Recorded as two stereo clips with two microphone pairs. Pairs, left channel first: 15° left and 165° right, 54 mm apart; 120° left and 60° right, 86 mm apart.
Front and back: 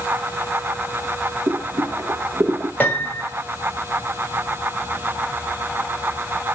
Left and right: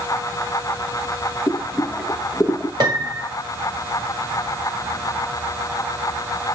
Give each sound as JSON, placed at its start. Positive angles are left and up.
{"t": 1.5, "sound": "boiling", "azimuth_deg": -145, "distance_m": 0.6}
{"t": 2.8, "sound": "a piano", "azimuth_deg": -40, "distance_m": 1.6}